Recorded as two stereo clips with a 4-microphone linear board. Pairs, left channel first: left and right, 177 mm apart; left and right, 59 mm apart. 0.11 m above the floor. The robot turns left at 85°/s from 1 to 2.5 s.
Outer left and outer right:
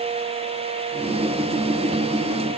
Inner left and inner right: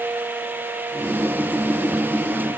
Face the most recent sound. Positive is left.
No sound to turn to.